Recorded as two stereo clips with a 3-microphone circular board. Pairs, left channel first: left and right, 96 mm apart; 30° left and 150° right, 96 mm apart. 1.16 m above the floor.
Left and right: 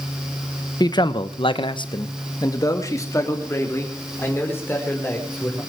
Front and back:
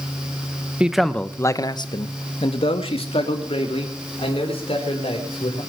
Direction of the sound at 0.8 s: 130° left.